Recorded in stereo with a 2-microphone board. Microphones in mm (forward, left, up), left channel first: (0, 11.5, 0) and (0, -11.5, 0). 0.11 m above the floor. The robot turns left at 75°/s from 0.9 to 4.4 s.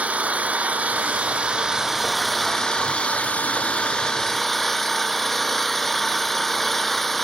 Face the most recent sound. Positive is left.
turn(degrees=15)